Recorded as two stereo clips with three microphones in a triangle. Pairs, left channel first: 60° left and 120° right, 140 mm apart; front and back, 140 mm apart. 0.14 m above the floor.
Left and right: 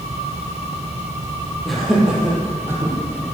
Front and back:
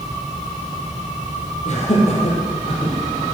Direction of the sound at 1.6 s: 30° right.